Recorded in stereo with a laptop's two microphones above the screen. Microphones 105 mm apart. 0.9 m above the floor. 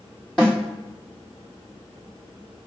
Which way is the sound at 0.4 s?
10° left (ahead or behind).